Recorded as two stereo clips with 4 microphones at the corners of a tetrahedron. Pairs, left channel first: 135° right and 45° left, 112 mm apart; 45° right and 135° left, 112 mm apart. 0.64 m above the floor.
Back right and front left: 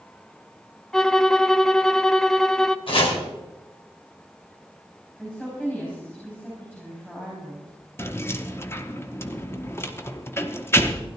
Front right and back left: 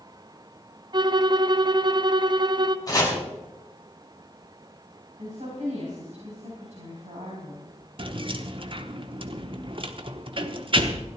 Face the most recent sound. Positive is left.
turn(degrees=160)